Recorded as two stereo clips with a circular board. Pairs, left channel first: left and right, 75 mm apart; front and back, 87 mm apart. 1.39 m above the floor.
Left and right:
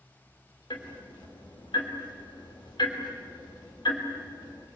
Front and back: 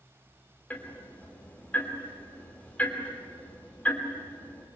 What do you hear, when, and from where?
0.7 s ticking: 75° left, 3.5 m